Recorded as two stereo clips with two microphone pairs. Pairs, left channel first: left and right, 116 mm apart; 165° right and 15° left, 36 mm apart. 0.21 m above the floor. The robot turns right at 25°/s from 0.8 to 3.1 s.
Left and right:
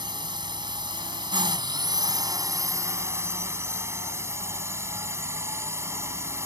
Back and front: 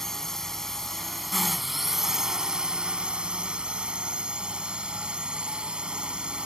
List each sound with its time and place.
0.0 s a drone: 90° right; by 6.5 s 35° right